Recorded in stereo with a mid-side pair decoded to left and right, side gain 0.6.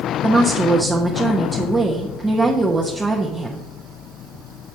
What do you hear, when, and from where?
0.2 s a woman speaking: 15° right, 0.9 m